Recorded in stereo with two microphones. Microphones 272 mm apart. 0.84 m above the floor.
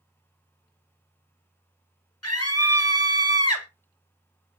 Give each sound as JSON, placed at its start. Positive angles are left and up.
{"t": 2.2, "sound": "a scream", "side_deg": 60, "distance_m": 1.4}